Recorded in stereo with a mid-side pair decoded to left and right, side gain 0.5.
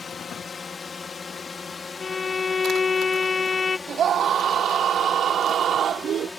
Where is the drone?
35° left; by 6.4 s 20° left.